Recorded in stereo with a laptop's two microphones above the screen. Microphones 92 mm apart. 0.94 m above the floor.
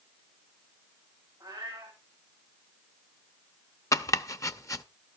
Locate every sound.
1.4 s a cat meowing: 25° right (ahead or behind), 9 m
3.9 s chopping: 35° left (ahead or behind), 0.6 m